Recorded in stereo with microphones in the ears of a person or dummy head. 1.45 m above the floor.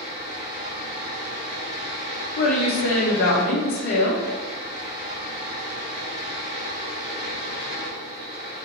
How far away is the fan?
About 1.8 m.